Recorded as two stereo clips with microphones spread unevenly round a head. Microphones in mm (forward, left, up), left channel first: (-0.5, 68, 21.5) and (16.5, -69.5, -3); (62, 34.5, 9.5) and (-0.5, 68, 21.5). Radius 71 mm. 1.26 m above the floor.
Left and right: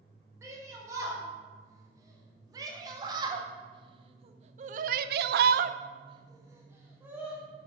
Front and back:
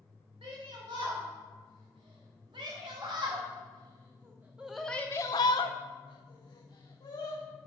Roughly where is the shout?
Behind right.